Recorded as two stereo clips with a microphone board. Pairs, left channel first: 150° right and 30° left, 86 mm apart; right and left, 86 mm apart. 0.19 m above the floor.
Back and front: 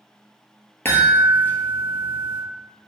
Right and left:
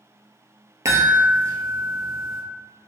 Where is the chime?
145° left, 0.6 m.